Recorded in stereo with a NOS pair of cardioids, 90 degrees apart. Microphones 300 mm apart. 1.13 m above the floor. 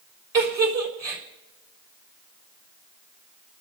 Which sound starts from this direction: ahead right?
A giggle, at 0.3 s.